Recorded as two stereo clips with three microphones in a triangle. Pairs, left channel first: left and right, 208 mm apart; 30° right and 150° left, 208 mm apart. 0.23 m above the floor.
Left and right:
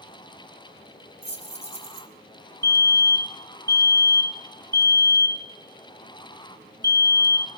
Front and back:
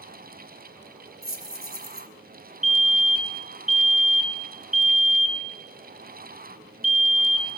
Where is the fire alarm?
130° right, 1.9 m.